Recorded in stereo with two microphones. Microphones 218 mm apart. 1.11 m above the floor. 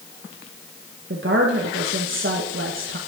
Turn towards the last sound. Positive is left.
turn(degrees=-65)  # may be behind; listen again after turning